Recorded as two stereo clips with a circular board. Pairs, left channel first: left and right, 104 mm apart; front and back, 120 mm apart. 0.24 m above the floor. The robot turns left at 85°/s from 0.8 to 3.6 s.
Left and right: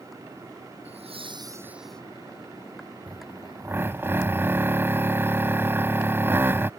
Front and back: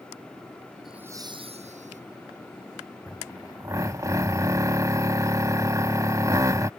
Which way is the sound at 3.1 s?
95° right.